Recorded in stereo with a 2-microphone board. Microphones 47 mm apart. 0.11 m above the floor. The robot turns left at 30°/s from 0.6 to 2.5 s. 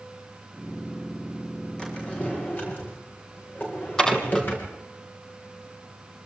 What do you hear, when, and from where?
1.8 s a drawer: 15° left (ahead or behind), 8.5 m; by 4.8 s 35° left (ahead or behind), 8.5 m
4.0 s dishes clattering: 10° left (ahead or behind), 2.5 m